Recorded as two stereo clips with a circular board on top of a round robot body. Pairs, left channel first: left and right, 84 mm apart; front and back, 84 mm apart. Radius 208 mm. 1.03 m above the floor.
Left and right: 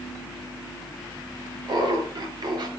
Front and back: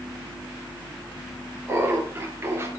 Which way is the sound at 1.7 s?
120° right.